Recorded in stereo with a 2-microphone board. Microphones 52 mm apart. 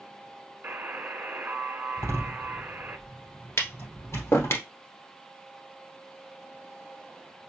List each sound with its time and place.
0.6 s a buzzer: 40° right (ahead or behind), 0.9 m
2.0 s a door slam: 75° left (ahead or behind), 3 m
3.6 s tapping: 60° left (ahead or behind), 1.2 m